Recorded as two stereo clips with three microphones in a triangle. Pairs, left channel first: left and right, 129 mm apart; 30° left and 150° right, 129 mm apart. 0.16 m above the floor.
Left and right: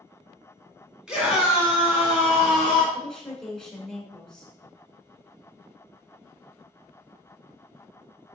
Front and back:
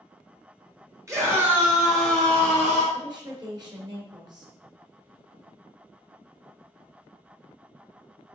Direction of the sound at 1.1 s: 165° right.